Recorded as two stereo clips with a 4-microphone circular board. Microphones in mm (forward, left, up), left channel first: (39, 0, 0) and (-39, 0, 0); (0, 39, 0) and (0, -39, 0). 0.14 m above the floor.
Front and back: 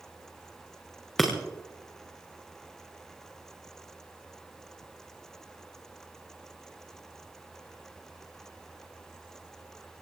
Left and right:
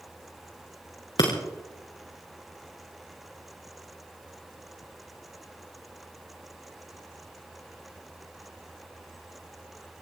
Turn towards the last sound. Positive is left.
turn(degrees=85)